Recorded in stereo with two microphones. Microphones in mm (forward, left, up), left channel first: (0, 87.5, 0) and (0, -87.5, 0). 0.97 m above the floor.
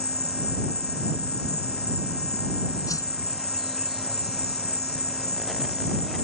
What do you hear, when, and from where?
0.0 s an insect: 65° left (ahead or behind)
2.9 s a whoosh: 20° left (ahead or behind)